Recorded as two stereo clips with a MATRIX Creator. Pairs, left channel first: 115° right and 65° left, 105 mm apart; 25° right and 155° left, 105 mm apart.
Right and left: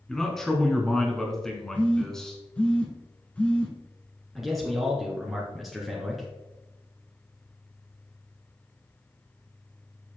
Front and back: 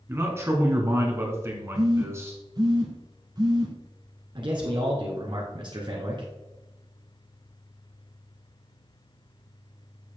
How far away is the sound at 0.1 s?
About 1.6 m.